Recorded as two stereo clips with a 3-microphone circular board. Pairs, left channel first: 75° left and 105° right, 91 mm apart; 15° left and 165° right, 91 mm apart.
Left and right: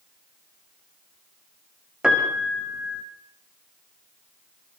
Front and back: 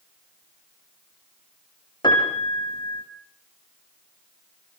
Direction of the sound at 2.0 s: 25° right.